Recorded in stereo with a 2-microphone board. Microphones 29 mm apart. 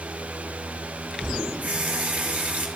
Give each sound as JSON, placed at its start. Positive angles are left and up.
{"t": 1.6, "sound": "a running tap", "side_deg": -50, "distance_m": 2.0}